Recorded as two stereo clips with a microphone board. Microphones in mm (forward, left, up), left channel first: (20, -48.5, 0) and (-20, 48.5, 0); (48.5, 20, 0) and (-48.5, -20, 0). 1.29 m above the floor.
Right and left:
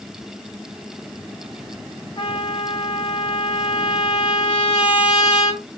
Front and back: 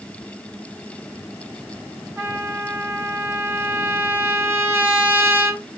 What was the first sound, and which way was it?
A trumpet, 95° right.